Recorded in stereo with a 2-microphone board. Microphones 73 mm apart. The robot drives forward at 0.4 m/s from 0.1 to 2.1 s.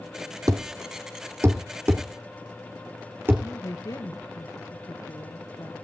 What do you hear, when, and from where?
0.5 s a thud: 50° right (ahead or behind), 1.0 m; by 3.5 s 30° right (ahead or behind), 1.5 m
3.4 s a woman speaking: 50° left (ahead or behind), 2.5 m